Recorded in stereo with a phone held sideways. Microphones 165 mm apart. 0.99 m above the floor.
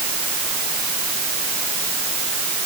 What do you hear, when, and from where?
Only background noise.